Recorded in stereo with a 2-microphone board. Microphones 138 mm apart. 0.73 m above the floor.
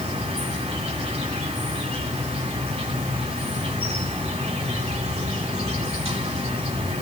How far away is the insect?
About 3 m.